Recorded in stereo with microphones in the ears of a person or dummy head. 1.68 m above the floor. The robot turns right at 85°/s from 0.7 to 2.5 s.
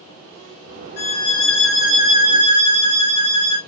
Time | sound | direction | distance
1.0 | a violin | 105° left | 2 m